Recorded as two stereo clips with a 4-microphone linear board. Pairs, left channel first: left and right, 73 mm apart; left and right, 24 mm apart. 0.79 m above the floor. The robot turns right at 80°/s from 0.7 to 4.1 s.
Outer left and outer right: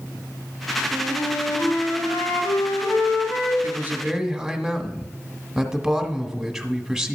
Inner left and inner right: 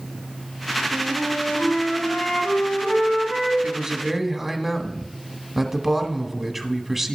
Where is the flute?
50° right, 3.5 m; by 3.5 s 160° left, 3.5 m.